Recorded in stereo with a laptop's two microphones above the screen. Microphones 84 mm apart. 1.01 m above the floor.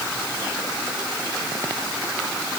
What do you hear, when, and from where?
Only background noise.